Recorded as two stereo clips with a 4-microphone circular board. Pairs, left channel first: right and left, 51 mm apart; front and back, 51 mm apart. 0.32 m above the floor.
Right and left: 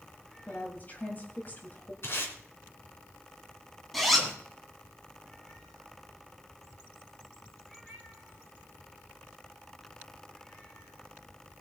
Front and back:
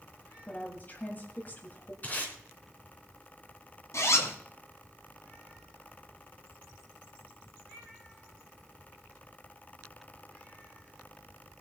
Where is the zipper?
Straight ahead, 2.5 m.